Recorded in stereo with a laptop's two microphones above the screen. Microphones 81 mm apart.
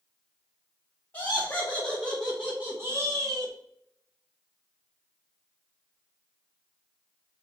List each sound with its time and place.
1.1 s laughter: 25° left (ahead or behind), 1.2 m; by 3.5 s 55° right (ahead or behind), 0.8 m